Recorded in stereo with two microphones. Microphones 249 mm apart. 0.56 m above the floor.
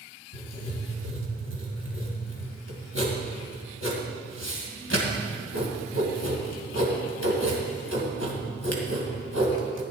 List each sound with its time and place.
0.3 s writing: 75° left (ahead or behind), 2 m